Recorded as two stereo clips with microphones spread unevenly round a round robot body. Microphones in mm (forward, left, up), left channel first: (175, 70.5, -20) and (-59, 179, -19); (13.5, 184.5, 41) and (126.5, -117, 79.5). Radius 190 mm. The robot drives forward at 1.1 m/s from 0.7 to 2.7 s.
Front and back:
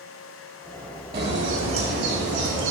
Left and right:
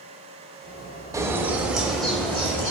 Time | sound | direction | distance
1.1 | a bird | 155° right | 1.7 m